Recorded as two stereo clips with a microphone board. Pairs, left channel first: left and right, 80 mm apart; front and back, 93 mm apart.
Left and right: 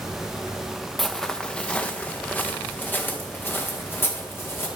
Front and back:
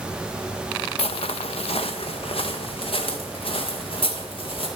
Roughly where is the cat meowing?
I don't hear a cat meowing.